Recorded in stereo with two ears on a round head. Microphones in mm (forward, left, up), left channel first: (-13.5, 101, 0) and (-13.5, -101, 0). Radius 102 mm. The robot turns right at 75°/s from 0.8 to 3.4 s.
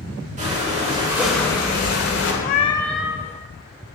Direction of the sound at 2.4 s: 140° left.